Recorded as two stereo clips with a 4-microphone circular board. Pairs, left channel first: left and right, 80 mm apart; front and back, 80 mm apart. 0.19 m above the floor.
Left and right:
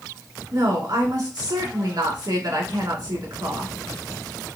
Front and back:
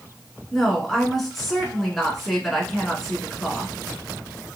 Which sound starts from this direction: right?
A woman speaking, at 0.5 s.